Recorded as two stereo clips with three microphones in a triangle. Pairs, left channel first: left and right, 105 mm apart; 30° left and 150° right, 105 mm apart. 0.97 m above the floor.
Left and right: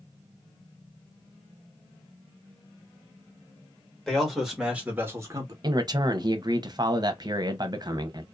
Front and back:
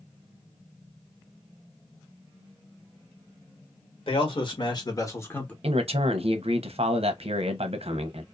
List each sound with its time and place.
4.1 s a man speaking: 5° left, 1.5 m; by 5.5 s 45° right, 1.0 m
5.6 s a man speaking: 140° right, 0.7 m